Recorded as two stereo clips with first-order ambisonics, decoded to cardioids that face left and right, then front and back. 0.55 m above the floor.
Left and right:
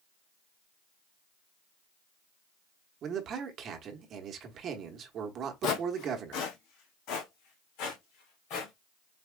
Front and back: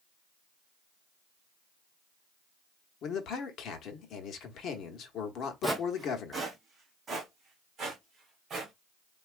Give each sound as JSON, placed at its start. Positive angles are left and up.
{"t": 3.0, "sound": "a man speaking", "azimuth_deg": -45, "distance_m": 1.0}
{"t": 5.6, "sound": "footsteps", "azimuth_deg": 95, "distance_m": 0.8}